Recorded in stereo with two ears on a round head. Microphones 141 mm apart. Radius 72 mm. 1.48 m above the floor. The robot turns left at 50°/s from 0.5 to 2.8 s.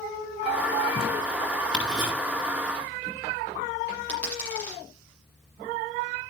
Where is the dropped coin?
10° left (ahead or behind), 7 m.